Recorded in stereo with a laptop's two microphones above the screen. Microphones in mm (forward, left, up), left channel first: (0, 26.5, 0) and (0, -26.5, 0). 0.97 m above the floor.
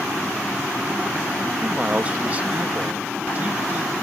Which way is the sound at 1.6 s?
30° right (ahead or behind).